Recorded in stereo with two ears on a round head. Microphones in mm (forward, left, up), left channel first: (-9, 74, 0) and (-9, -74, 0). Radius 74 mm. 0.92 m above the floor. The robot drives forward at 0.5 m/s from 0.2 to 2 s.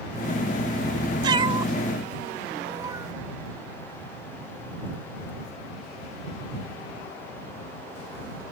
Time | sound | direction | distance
1.2 | a cat meowing | 30° right (ahead or behind) | ?